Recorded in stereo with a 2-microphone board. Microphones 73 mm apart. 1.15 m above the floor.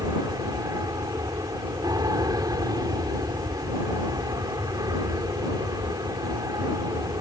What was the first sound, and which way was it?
An aircraft, 60° right (ahead or behind).